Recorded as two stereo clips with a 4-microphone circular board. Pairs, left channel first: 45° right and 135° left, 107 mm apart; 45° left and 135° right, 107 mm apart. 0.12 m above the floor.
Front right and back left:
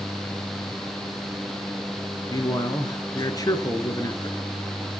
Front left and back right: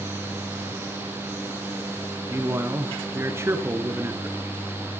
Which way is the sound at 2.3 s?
80° right.